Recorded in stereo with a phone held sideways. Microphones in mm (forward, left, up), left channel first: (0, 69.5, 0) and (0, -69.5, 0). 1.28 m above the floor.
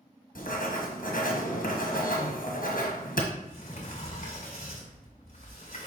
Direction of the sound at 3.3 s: 55° left (ahead or behind).